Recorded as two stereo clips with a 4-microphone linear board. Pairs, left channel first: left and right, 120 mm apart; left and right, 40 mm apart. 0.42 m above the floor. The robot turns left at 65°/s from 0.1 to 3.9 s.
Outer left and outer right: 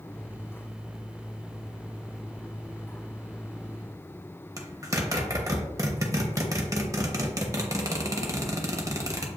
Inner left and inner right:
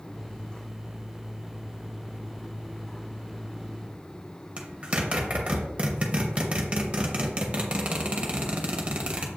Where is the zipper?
30° right (ahead or behind), 0.8 m.